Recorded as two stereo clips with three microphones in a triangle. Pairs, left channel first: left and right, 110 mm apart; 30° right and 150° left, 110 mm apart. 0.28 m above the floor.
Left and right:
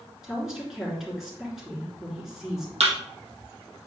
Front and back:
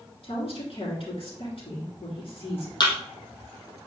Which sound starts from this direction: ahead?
A woman speaking, at 0.2 s.